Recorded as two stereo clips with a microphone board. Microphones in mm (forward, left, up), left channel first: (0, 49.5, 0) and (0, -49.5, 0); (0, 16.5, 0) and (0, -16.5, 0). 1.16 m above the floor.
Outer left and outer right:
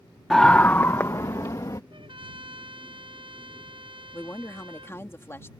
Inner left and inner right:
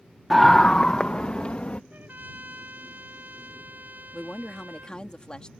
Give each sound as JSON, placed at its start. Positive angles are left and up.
{"t": 0.3, "sound": "a scream", "side_deg": 5}
{"t": 1.9, "sound": "a trumpet", "side_deg": -65}
{"t": 4.1, "sound": "a woman speaking", "side_deg": 25}